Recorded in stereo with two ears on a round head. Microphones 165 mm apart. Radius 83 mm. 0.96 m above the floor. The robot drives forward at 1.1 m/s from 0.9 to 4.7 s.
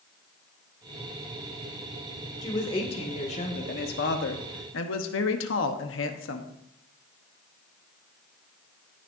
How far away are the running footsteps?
I don't hear running footsteps.